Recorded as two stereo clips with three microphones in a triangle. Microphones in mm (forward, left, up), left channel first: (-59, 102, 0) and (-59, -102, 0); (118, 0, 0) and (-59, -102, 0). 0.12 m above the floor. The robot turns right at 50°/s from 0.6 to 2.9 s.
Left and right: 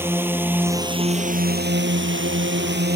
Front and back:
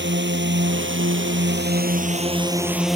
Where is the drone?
170° right; by 3.0 s 60° right.